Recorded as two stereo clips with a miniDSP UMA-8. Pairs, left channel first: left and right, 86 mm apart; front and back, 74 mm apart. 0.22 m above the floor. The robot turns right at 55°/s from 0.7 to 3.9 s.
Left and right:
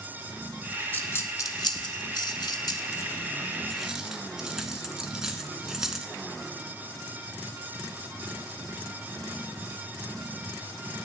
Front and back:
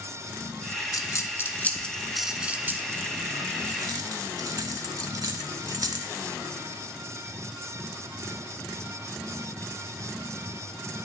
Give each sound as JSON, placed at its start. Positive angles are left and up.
{"t": 0.9, "sound": "a dropped coin", "azimuth_deg": 25, "distance_m": 0.7}